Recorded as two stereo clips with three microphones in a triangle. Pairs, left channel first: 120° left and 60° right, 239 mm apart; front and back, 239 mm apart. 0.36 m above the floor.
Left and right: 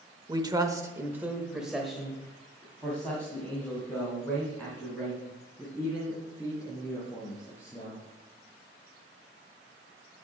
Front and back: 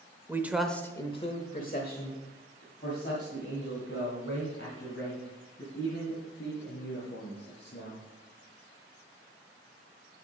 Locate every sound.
0.3 s a man speaking: 115° right, 0.9 m; by 8.0 s 40° left, 5.5 m